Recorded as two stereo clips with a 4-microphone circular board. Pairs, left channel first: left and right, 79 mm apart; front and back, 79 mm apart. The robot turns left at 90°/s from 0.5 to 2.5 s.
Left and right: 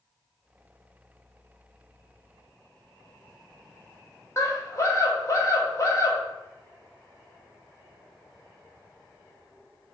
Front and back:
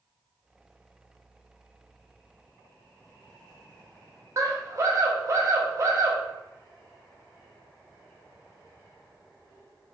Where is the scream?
135° left, 1.0 m.